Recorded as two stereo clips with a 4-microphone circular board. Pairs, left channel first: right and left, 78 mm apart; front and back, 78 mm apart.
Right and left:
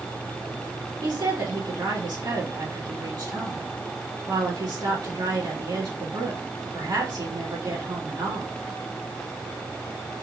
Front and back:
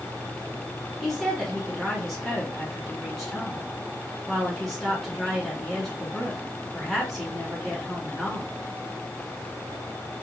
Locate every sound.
1.0 s a woman speaking: 90° left, 3 m